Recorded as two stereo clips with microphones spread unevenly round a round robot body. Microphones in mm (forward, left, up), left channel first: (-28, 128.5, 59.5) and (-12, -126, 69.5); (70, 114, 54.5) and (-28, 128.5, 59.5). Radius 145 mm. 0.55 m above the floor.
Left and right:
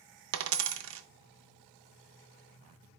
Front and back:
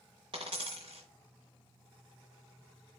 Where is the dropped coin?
125° right, 0.5 m.